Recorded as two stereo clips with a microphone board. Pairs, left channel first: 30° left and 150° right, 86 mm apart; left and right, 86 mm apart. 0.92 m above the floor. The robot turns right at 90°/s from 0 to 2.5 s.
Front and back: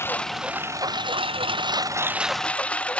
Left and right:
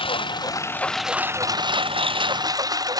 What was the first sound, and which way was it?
A lawn mower, 90° left.